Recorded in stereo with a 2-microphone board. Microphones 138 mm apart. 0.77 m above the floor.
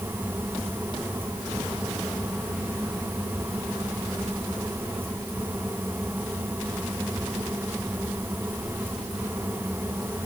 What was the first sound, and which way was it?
Only background noise.